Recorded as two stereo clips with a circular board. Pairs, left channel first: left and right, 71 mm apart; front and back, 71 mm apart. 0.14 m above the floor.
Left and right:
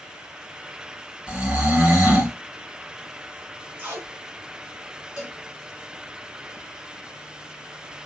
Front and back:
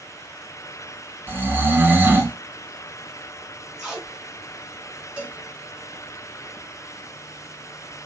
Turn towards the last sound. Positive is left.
turn(degrees=-140)